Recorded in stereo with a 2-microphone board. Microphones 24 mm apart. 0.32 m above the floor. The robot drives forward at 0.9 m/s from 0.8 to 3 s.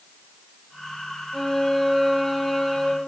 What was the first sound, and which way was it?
A violin, 10° left (ahead or behind).